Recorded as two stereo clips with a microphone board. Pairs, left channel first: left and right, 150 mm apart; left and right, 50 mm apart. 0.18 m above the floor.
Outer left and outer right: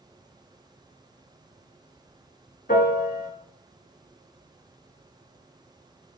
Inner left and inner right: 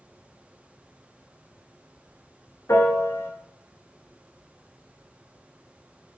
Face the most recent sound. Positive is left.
turn(degrees=70)  # may be behind; listen again after turning